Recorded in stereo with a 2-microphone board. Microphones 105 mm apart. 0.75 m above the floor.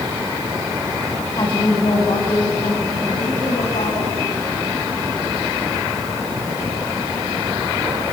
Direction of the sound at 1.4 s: 45° left (ahead or behind).